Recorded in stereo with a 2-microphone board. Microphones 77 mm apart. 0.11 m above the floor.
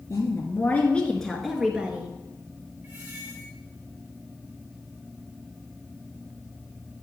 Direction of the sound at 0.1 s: 40° left (ahead or behind).